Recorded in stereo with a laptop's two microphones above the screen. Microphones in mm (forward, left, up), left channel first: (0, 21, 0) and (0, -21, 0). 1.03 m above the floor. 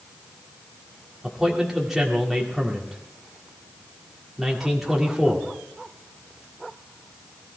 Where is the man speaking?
5° right (ahead or behind), 2 m.